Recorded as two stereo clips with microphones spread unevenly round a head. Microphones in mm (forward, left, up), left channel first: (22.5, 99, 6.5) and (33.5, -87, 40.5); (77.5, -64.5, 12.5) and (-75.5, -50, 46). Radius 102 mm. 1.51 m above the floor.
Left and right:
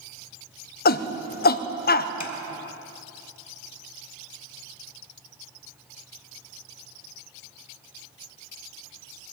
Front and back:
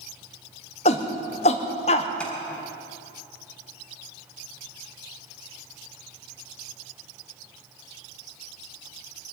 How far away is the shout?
About 0.8 m.